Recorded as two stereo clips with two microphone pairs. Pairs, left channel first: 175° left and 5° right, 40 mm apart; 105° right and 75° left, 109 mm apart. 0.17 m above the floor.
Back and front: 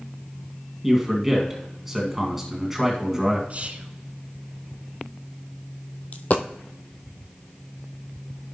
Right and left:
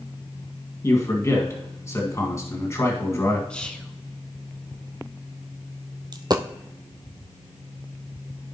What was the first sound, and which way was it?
A man speaking, 80° right.